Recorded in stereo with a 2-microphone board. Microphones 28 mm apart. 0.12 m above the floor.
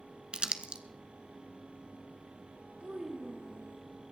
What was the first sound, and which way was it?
Crumpling, 35° right (ahead or behind).